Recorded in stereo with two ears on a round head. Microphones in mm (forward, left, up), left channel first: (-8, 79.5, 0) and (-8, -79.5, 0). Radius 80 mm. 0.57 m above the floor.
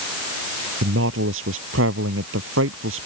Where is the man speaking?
85° right.